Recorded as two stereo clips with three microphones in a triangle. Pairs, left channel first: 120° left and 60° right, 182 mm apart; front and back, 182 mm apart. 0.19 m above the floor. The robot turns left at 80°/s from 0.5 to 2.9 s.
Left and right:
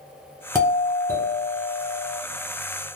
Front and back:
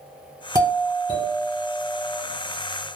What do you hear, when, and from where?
0.6 s a doorbell: 145° right, 1.4 m; by 2.2 s 85° left, 1.4 m